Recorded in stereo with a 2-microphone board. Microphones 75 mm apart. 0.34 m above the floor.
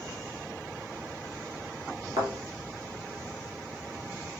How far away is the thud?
About 1.5 m.